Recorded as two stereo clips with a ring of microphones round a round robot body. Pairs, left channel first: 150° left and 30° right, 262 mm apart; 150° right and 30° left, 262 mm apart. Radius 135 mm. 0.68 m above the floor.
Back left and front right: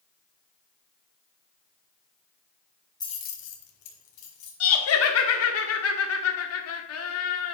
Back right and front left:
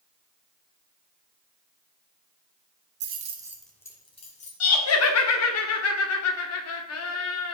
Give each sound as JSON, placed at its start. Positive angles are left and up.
{"t": 3.0, "sound": "keys jangling", "azimuth_deg": 75, "distance_m": 1.2}
{"t": 4.6, "sound": "laughter", "azimuth_deg": 180, "distance_m": 1.4}